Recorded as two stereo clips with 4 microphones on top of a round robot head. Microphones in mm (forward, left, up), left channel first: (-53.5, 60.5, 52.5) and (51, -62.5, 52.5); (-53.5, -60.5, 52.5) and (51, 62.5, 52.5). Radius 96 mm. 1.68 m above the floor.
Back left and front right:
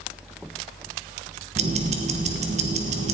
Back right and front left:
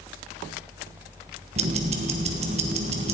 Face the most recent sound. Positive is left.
turn(degrees=0)